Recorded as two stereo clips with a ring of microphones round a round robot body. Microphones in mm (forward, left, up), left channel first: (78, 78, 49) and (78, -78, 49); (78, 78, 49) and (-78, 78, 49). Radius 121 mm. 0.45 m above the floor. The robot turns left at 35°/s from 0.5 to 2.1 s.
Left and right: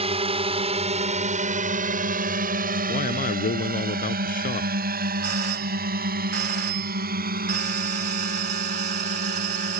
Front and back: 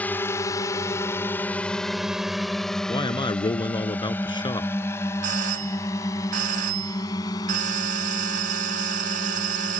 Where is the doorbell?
140° right.